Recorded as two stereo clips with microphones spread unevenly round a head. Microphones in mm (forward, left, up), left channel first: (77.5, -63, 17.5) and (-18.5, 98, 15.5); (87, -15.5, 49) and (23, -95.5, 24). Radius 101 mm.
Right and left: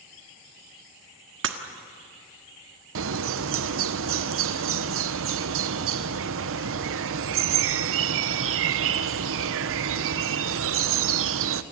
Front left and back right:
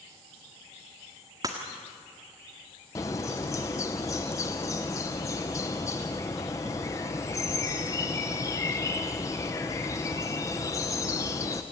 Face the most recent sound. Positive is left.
turn(degrees=125)